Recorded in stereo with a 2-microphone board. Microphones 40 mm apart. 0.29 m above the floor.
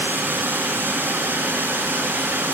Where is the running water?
75° right (ahead or behind), 1.6 m.